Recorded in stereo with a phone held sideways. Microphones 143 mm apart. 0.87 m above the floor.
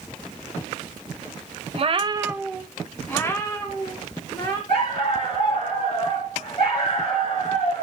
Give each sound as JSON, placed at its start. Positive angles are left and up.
{"t": 1.7, "sound": "a cat meowing", "side_deg": -45, "distance_m": 0.8}
{"t": 4.7, "sound": "a dog barking", "side_deg": 40, "distance_m": 4.0}